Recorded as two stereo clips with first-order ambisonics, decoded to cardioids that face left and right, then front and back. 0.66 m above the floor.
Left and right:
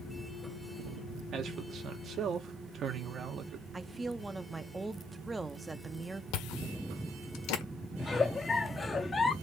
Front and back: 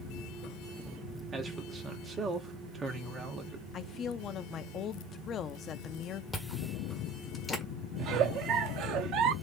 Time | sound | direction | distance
1.3 | a man speaking | 125° right | 1.3 m
3.7 | a woman speaking | 20° right | 0.5 m
6.3 | chewing | 80° left | 1.4 m
8.0 | a giggle | 160° left | 0.6 m